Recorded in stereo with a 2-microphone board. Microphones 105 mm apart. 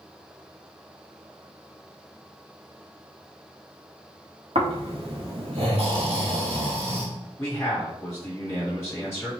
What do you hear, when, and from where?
4.5 s snoring: 70° right (ahead or behind), 1.5 m
7.4 s a man speaking: 25° left (ahead or behind), 2 m